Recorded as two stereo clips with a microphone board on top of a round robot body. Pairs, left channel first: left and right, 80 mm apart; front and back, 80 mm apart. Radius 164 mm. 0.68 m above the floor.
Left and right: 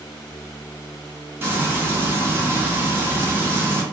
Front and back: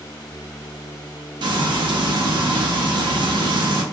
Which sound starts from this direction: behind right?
Frying, at 1.4 s.